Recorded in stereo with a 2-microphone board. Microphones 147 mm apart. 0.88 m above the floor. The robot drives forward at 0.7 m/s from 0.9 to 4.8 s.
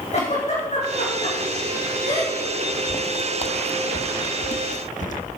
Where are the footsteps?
35° left (ahead or behind), 1.1 m; by 5.2 s 60° left (ahead or behind), 1.8 m.